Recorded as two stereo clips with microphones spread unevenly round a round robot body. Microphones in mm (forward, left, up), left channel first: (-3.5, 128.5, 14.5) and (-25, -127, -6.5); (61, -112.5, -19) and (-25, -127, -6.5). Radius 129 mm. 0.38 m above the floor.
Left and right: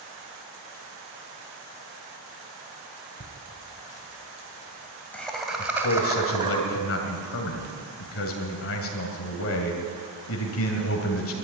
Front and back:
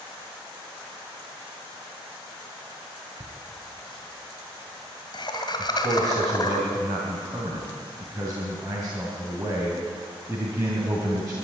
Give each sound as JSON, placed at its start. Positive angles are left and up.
{"t": 3.2, "sound": "laughter", "azimuth_deg": 35, "distance_m": 2.0}
{"t": 5.6, "sound": "a man speaking", "azimuth_deg": 115, "distance_m": 2.5}